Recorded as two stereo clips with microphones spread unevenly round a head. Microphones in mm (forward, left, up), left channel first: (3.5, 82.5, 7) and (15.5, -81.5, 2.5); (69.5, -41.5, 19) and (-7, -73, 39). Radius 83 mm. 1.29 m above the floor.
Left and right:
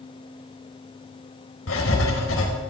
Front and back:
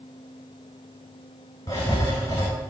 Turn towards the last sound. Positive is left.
turn(degrees=90)